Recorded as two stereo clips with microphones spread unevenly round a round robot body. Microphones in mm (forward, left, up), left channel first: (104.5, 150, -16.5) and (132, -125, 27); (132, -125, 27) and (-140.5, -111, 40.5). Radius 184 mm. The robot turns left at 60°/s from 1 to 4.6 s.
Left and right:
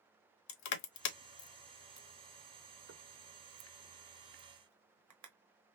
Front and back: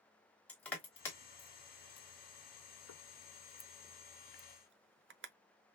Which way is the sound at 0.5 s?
80° left.